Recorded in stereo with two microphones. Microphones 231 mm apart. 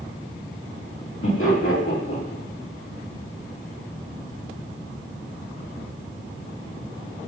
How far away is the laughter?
About 2.0 m.